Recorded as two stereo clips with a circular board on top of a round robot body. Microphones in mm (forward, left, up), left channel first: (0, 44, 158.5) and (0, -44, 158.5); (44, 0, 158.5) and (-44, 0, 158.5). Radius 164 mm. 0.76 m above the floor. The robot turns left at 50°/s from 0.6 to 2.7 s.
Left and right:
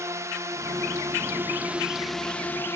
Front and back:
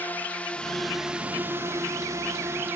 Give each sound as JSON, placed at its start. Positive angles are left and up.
{"t": 0.0, "sound": "a drone", "azimuth_deg": -60}